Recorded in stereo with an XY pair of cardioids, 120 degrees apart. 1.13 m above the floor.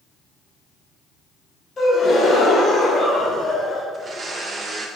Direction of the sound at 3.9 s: 35° right.